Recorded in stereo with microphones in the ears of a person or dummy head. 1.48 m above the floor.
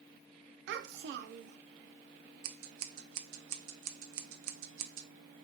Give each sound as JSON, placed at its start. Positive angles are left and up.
{"t": 0.7, "sound": "a child speaking", "side_deg": -65, "distance_m": 0.6}
{"t": 2.4, "sound": "scissors", "side_deg": -65, "distance_m": 0.8}